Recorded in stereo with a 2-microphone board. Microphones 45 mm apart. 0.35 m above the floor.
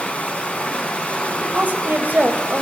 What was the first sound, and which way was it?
Running water, 35° left (ahead or behind).